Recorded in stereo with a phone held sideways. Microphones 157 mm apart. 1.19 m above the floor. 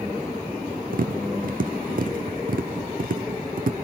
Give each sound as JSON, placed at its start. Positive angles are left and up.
{"t": 0.9, "sound": "tapping", "side_deg": -60, "distance_m": 1.3}